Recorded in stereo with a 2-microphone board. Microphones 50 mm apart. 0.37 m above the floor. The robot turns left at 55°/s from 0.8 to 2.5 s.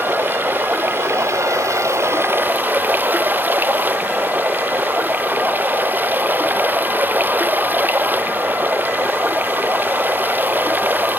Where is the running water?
45° right; by 11.2 s 140° right.